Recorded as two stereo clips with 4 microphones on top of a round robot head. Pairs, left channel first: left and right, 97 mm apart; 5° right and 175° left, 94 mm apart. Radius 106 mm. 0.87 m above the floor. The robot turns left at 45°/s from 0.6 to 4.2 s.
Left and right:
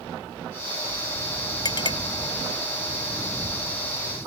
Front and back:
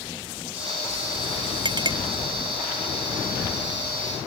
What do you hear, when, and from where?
1.6 s a clink: 140° left; by 2.0 s 125° left